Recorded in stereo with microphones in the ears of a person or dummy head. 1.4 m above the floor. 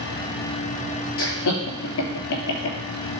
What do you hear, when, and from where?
1.2 s laughter: 65° left (ahead or behind), 3 m